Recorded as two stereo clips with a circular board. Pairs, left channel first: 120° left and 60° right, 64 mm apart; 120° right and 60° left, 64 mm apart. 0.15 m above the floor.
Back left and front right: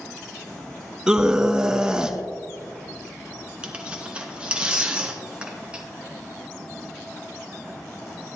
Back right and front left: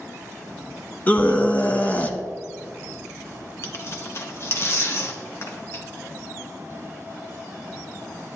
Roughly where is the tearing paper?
Behind right.